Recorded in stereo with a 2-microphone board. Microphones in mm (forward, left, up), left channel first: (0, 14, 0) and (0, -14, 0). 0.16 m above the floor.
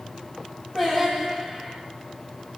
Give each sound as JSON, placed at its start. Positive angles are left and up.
{"t": 0.8, "sound": "singing", "side_deg": 5, "distance_m": 3.5}